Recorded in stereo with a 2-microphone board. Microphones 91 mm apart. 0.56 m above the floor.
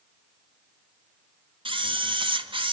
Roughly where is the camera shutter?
Right.